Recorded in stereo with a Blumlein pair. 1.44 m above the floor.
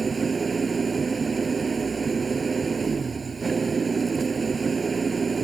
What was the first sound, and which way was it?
An engine running, 15° right.